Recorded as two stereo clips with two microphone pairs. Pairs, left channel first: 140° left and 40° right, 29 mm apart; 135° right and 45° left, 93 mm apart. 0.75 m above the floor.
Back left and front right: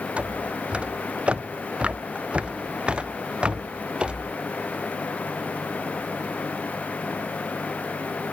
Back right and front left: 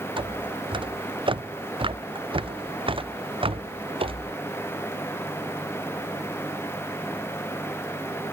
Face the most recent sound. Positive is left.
turn(degrees=20)